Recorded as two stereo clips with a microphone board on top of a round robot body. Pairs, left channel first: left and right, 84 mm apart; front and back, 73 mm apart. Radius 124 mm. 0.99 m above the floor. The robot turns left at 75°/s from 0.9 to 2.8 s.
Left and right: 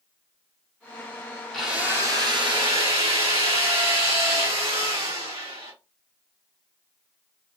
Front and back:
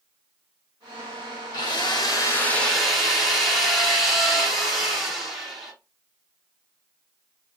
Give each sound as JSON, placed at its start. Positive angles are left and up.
{"t": 1.5, "sound": "a drill", "azimuth_deg": 0, "distance_m": 1.7}